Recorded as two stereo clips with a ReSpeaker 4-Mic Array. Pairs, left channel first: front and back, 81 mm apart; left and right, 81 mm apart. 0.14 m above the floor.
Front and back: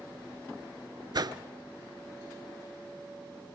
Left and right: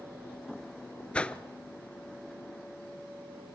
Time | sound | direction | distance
1.1 | a whoosh | 165° left | 0.6 m